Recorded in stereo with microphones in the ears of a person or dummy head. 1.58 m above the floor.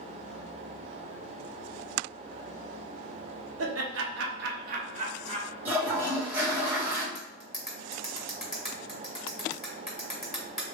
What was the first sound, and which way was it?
Laughter, 80° right.